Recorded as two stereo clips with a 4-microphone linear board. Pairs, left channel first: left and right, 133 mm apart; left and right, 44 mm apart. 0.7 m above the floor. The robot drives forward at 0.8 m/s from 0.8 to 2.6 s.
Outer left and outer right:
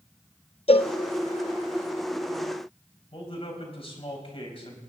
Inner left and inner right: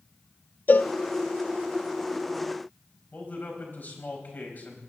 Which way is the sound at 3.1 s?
45° left (ahead or behind).